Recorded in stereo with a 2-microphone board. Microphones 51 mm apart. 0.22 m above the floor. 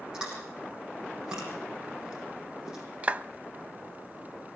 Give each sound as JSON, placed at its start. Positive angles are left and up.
{"t": 0.1, "sound": "chewing", "side_deg": -15, "distance_m": 8.0}
{"t": 3.0, "sound": "a clap", "side_deg": -25, "distance_m": 0.8}